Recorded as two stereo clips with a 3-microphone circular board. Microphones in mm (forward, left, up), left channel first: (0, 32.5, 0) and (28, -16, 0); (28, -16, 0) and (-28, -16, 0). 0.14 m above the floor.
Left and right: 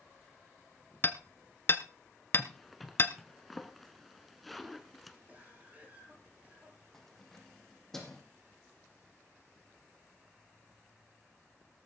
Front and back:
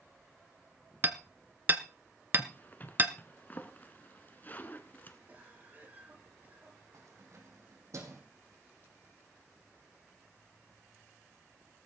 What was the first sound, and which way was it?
Hammering, 145° left.